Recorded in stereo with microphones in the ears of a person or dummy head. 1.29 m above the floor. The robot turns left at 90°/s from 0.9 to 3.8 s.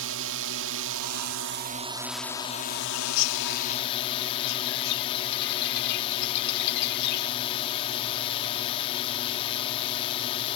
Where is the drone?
70° right; by 10.6 s 30° left.